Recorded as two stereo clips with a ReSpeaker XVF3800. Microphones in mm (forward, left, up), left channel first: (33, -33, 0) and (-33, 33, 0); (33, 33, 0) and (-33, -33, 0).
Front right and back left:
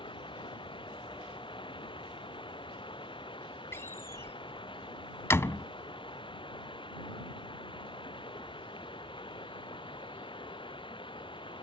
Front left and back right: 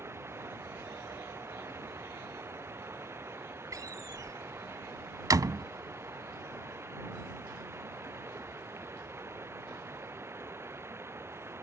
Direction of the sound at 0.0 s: 70° right.